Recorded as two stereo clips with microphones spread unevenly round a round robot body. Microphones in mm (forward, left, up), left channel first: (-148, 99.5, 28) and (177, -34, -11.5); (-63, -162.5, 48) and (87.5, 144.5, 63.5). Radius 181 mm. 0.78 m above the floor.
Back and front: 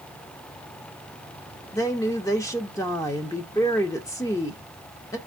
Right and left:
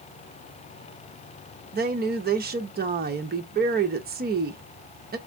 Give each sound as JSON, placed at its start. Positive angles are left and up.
{"t": 1.7, "sound": "a woman speaking", "azimuth_deg": 75, "distance_m": 0.6}